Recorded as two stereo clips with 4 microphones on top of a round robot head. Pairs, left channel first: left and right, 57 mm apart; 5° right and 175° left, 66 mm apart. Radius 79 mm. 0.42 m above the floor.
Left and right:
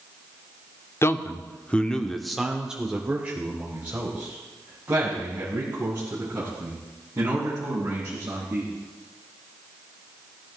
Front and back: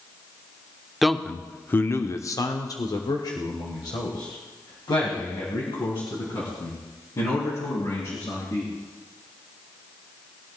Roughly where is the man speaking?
Left.